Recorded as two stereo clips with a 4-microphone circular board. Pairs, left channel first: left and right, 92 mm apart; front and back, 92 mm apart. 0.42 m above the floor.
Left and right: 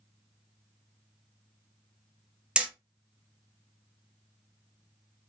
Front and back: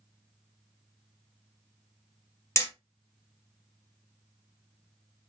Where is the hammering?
20° right, 1.0 m.